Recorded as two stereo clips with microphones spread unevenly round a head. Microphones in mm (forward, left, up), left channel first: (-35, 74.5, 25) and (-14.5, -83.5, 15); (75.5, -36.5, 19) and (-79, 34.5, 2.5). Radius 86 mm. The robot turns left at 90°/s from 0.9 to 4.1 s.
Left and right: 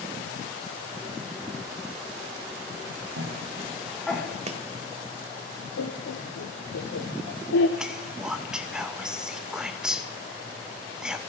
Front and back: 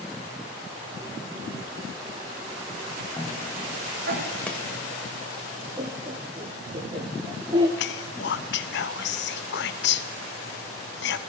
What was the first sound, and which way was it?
A cough, 95° right.